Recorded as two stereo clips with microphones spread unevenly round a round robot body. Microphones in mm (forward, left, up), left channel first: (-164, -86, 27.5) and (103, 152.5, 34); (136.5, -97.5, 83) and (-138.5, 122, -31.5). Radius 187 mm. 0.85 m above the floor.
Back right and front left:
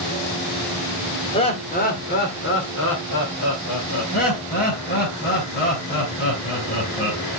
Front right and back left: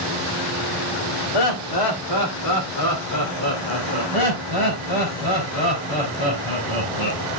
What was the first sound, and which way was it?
Laughter, 65° right.